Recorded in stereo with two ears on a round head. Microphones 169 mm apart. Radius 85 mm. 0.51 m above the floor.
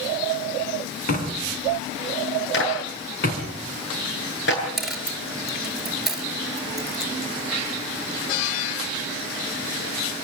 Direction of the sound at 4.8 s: Centre (ahead or behind).